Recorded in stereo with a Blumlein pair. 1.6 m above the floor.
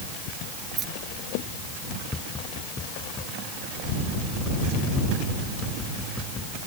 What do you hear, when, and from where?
0.8 s keys jangling: 25° right
2.1 s tapping: 15° left